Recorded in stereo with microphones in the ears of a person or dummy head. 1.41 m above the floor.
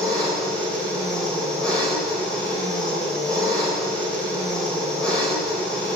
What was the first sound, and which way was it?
An engine running, 5° left (ahead or behind).